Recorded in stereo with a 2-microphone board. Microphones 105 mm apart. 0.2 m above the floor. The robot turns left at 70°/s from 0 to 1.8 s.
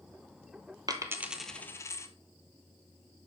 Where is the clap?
No clap in this recording.